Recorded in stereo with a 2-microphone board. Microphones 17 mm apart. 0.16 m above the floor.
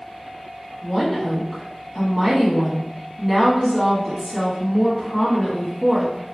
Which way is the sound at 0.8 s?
20° left (ahead or behind).